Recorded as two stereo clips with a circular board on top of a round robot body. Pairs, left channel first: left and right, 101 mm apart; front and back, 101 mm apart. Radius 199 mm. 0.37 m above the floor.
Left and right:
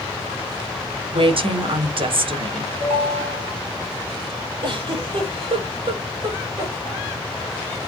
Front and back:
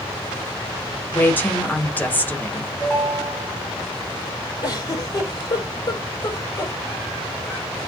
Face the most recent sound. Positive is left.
turn(degrees=-55)